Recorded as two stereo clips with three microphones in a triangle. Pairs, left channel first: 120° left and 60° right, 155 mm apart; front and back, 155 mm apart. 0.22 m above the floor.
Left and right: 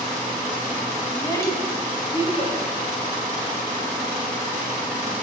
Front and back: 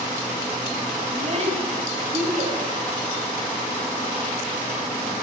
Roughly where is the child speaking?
Behind.